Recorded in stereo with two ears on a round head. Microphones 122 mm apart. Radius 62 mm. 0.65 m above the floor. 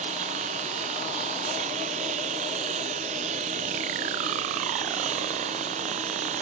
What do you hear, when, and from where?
0.0 s a lawn mower: 45° right (ahead or behind)